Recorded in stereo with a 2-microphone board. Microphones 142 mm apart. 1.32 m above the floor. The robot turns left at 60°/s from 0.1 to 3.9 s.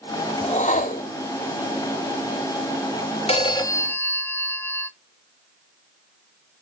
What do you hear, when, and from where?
0.4 s a whoosh: 135° left, 1.6 m; by 1.1 s 90° left, 1.6 m
3.3 s a phone ringing: 55° left, 1.1 m; by 4.9 s 15° left, 1.1 m